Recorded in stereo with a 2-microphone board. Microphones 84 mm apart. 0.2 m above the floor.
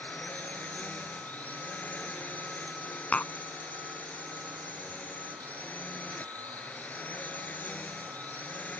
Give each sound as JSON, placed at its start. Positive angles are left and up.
{"t": 0.0, "sound": "a drone", "side_deg": 20}
{"t": 3.1, "sound": "tapping", "side_deg": 15}